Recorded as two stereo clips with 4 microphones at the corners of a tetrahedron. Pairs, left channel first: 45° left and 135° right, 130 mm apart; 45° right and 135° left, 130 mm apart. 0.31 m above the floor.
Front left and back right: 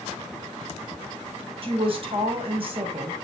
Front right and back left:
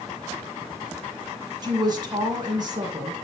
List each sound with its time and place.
1.6 s a woman speaking: 175° right, 2 m